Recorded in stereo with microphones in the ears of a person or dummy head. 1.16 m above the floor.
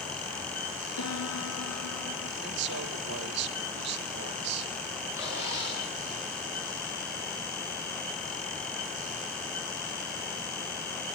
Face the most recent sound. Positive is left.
turn(degrees=-15)  # may be behind; listen again after turning